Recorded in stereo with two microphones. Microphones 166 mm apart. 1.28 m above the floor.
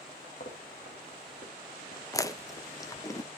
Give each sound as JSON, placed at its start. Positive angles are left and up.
{"t": 0.4, "sound": "footsteps", "side_deg": 55, "distance_m": 3.0}
{"t": 2.1, "sound": "chewing", "side_deg": 20, "distance_m": 0.5}